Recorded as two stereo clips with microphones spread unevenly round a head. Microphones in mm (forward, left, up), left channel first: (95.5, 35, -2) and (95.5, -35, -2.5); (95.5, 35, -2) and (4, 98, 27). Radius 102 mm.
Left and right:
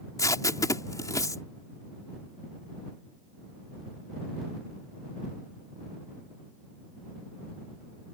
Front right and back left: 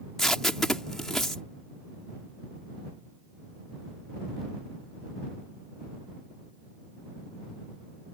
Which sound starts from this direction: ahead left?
Tape being pulled, at 0.2 s.